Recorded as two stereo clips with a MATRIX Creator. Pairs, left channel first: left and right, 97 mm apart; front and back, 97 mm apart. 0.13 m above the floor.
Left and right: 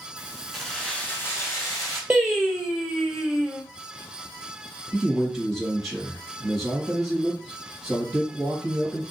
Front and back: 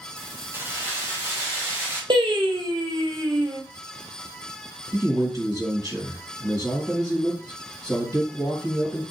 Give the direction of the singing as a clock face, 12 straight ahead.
6 o'clock.